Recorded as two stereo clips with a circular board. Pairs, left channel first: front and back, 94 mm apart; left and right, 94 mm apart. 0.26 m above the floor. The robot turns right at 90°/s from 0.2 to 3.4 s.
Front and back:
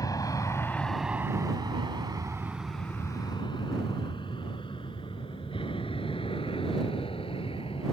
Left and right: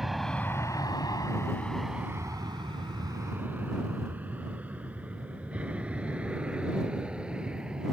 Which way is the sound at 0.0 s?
5° right.